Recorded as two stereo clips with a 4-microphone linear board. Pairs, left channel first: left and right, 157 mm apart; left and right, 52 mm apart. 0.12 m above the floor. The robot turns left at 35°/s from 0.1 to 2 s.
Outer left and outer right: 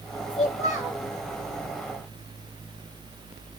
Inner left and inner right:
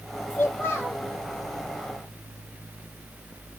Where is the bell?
No bell in this recording.